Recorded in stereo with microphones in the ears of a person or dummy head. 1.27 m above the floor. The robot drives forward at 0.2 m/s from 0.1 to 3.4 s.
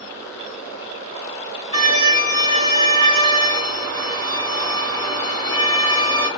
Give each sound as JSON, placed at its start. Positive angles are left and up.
{"t": 1.7, "sound": "a violin", "side_deg": -30, "distance_m": 3.0}